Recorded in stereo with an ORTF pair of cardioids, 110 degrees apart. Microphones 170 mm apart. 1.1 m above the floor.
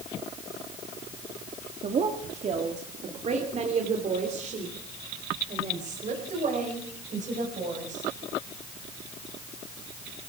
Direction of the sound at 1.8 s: 40° right.